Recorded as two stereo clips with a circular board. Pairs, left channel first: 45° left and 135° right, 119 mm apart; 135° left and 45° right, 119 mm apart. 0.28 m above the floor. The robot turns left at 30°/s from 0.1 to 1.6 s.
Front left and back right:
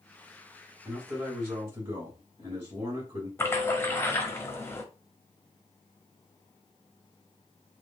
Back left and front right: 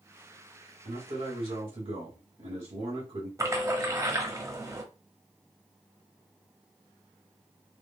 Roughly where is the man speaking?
Ahead right.